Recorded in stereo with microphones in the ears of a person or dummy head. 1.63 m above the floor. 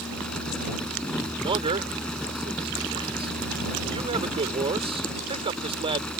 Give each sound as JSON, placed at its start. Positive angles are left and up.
{"t": 0.0, "sound": "a fan", "side_deg": 5}
{"t": 1.4, "sound": "a man speaking", "side_deg": -30}